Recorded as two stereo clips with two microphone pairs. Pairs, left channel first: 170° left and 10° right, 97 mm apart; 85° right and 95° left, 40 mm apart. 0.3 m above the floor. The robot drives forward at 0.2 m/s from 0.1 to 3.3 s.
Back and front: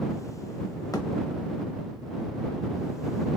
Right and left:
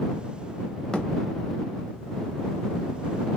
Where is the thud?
155° right, 0.6 m.